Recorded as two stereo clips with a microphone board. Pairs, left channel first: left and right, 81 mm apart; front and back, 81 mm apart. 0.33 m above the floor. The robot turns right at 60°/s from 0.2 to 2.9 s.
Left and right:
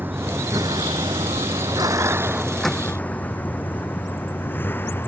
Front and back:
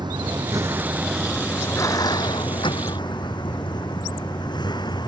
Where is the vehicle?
155° right; by 5.1 s 25° left.